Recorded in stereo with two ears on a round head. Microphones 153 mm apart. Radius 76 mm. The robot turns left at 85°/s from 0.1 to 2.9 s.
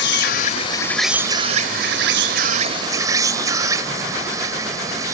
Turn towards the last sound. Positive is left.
turn(degrees=-160)